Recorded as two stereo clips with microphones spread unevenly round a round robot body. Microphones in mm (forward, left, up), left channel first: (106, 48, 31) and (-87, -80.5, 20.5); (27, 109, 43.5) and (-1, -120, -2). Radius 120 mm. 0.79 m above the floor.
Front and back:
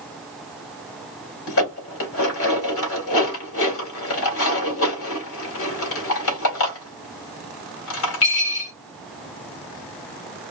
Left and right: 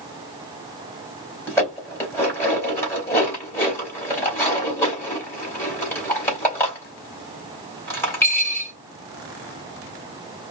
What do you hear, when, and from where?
1.5 s dishes clattering: straight ahead, 2.5 m